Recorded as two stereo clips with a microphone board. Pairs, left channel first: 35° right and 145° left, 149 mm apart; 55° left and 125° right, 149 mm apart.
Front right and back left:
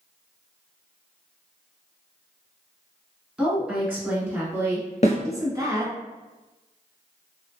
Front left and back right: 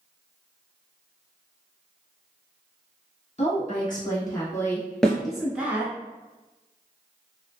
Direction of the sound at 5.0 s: 30° right.